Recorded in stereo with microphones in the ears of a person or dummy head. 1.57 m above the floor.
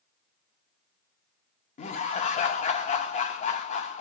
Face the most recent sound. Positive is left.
turn(degrees=40)  # may be behind; listen again after turning